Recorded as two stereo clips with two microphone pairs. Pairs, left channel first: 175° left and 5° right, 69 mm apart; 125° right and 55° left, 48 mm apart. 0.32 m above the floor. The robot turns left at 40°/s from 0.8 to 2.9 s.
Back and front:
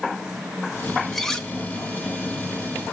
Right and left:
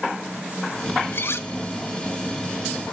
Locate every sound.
1.1 s cutlery clinking: 95° right, 0.8 m; by 1.5 s 110° right, 0.8 m